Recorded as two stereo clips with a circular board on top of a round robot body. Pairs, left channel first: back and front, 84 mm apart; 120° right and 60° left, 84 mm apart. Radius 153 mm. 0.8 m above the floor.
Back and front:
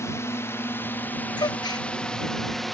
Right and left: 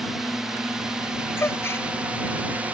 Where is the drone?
145° left; by 2.7 s 95° left.